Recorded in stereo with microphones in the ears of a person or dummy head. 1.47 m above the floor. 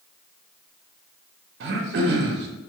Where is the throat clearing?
65° right (ahead or behind), 0.7 m.